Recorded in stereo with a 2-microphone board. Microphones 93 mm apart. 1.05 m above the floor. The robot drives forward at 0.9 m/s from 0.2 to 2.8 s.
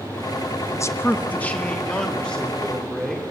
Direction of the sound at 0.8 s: 30° left (ahead or behind).